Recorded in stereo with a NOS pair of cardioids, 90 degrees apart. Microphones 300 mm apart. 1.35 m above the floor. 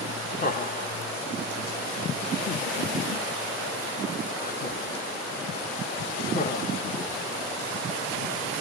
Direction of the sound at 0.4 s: 30° left.